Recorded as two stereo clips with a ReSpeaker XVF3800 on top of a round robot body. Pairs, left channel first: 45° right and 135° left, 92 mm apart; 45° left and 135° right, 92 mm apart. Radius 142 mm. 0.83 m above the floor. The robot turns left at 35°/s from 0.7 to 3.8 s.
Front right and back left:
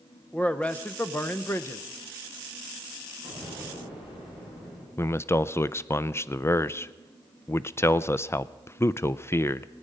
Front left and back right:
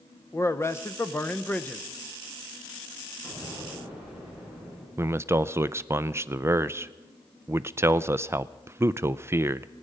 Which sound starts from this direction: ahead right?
An explosion, at 3.2 s.